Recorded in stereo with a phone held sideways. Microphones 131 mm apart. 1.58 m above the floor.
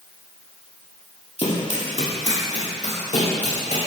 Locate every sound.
1.4 s running footsteps: 55° left (ahead or behind), 2.5 m; by 3.8 s 65° left (ahead or behind), 5.5 m